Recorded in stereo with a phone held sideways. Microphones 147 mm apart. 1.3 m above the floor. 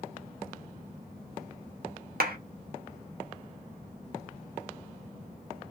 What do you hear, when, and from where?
2.2 s a clap: 75° right (ahead or behind), 0.6 m